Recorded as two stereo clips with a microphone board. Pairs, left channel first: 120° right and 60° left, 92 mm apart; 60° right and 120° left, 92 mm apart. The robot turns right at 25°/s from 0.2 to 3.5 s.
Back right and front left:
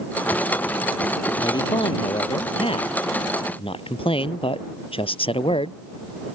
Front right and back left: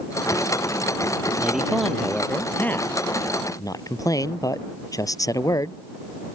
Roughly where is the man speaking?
Behind.